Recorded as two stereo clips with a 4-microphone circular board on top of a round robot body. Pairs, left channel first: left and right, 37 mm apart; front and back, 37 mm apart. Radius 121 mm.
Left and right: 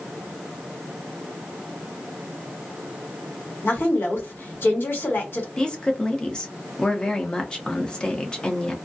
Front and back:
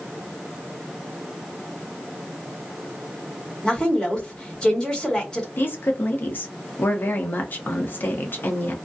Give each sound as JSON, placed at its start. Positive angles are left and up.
{"t": 3.6, "sound": "a woman speaking", "azimuth_deg": 70, "distance_m": 1.5}
{"t": 5.6, "sound": "a woman speaking", "azimuth_deg": 25, "distance_m": 0.9}